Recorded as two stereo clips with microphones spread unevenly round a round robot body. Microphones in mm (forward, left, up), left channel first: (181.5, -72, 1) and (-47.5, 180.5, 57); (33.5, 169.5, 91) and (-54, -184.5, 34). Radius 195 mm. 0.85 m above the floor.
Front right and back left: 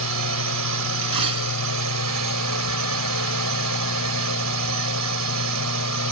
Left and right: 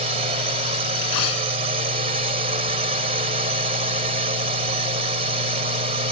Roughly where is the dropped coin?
Left.